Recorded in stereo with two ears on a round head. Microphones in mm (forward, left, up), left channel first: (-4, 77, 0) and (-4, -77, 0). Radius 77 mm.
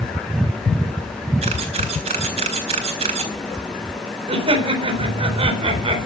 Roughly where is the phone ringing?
I don't hear a phone ringing.